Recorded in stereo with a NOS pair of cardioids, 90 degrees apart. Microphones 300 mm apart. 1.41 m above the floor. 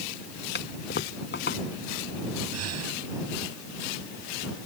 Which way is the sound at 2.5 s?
55° right.